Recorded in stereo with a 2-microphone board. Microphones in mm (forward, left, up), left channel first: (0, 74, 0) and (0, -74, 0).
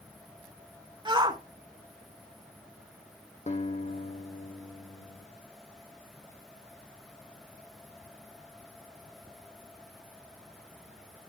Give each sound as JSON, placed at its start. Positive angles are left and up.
{"t": 1.1, "sound": "a shout", "side_deg": -30, "distance_m": 1.3}
{"t": 3.5, "sound": "a guitar", "side_deg": 50, "distance_m": 2.5}